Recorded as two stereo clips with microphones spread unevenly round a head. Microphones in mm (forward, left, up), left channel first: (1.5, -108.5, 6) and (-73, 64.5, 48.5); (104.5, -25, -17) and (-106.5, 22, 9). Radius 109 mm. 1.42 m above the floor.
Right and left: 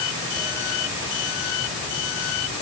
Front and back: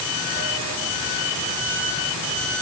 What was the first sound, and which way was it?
Only background noise.